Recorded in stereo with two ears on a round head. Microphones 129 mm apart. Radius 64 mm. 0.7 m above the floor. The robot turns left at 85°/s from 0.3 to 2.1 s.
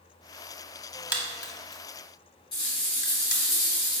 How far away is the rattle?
About 1.8 m.